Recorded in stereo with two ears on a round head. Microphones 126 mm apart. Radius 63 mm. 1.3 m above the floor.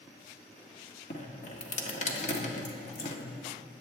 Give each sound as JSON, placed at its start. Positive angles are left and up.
{"t": 1.1, "sound": "dripping", "side_deg": 50, "distance_m": 1.6}